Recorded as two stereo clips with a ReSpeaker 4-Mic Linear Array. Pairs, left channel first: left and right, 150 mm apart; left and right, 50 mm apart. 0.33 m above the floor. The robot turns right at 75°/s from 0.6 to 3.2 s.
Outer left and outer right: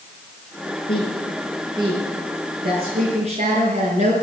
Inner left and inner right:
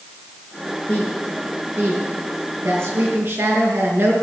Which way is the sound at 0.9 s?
35° left (ahead or behind).